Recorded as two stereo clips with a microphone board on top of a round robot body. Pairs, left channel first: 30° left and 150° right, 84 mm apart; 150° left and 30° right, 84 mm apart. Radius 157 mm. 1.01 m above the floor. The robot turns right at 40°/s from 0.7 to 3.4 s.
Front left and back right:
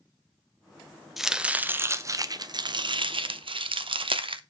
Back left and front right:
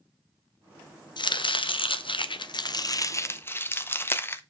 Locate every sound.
1.2 s chopping: 125° left, 0.8 m; by 4.4 s 150° right, 0.8 m